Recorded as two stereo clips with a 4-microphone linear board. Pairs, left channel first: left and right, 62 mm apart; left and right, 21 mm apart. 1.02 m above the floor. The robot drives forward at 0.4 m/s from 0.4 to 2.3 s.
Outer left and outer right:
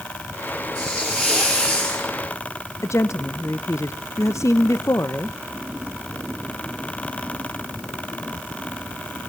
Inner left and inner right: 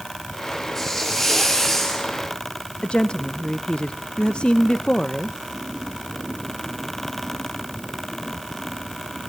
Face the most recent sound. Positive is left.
turn(degrees=55)  # may be behind; listen again after turning